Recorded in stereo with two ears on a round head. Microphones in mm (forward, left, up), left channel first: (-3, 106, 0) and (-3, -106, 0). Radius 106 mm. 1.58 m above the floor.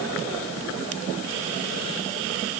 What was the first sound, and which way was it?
Only background noise.